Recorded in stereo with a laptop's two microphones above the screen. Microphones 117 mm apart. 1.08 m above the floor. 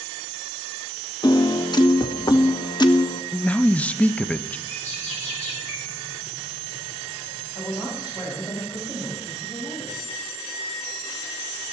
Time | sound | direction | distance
1.2 | a piano | 35° left (ahead or behind) | 0.7 m
3.3 | a man speaking | 10° left (ahead or behind) | 0.6 m
4.7 | a bird | 80° left | 5 m
7.5 | a woman speaking | 40° left (ahead or behind) | 6 m